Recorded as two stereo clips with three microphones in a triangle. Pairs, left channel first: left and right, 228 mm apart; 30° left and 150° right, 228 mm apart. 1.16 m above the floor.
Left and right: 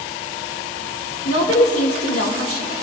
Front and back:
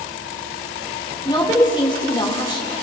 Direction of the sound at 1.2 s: 100° left.